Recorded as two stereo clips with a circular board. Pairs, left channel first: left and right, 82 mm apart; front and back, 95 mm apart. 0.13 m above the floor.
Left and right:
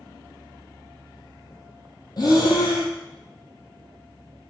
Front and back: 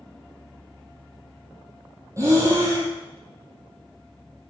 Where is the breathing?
120° left, 0.6 m.